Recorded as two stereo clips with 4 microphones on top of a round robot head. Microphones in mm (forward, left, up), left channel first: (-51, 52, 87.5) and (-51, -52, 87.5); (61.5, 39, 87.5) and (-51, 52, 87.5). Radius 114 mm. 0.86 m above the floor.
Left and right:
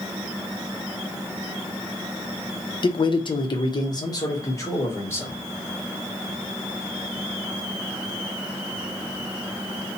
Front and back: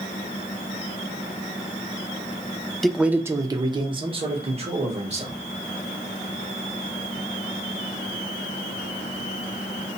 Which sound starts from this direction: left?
A man speaking, at 2.8 s.